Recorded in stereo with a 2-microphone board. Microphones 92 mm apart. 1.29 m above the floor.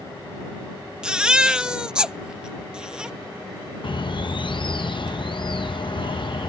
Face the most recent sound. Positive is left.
turn(degrees=60)  # may be behind; listen again after turning